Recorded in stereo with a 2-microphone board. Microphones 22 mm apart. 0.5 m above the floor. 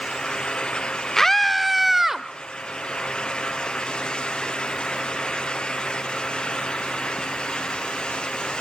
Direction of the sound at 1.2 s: 20° left (ahead or behind).